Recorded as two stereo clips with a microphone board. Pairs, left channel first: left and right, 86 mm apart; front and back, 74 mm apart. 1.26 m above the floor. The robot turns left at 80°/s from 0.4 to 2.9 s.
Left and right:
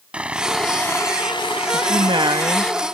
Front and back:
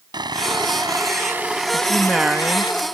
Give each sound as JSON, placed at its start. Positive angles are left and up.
{"t": 0.1, "sound": "sawing", "azimuth_deg": -165}
{"t": 1.7, "sound": "a woman speaking", "azimuth_deg": -65}